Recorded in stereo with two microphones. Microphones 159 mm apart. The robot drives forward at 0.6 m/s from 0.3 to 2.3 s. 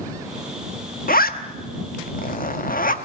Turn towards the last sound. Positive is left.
turn(degrees=60)  # may be behind; listen again after turning